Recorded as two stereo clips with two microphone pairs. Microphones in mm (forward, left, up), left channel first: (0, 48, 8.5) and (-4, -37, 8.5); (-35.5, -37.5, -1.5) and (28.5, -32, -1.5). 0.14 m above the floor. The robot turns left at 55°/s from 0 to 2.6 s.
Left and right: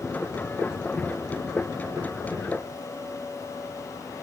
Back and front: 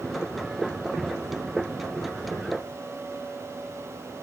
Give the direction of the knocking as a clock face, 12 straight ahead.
I don't hear knocking.